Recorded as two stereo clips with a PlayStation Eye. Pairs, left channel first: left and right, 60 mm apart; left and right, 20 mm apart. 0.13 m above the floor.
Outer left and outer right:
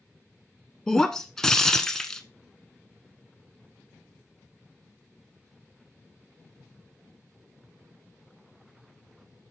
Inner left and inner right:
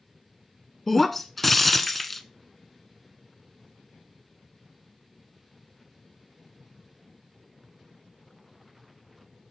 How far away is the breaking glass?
About 0.8 m.